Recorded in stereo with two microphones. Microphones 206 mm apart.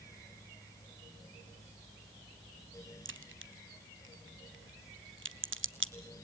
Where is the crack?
65° right (ahead or behind), 0.8 m.